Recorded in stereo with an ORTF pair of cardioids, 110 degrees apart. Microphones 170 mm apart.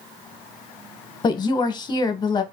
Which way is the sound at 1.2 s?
25° left.